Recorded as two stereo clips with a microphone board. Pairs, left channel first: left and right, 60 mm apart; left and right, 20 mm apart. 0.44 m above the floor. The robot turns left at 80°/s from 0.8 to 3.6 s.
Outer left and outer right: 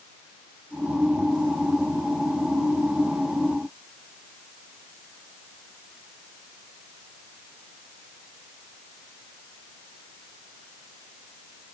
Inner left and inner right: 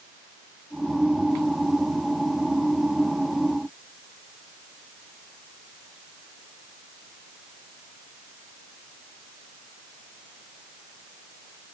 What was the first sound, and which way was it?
Only background noise.